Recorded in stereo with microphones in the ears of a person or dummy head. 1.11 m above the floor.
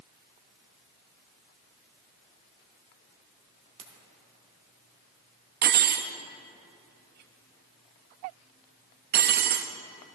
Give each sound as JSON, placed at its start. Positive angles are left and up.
{"t": 3.8, "sound": "a ringtone", "side_deg": -35, "distance_m": 2.0}
{"t": 5.6, "sound": "cutlery clinking", "side_deg": -45, "distance_m": 0.6}